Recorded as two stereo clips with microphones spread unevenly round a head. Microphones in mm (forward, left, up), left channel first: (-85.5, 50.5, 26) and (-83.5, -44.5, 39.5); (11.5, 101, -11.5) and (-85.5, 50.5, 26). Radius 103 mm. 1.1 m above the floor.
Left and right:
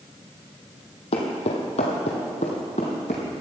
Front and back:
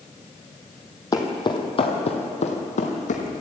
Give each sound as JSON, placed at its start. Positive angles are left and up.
{"t": 1.1, "sound": "footsteps", "azimuth_deg": 90, "distance_m": 2.5}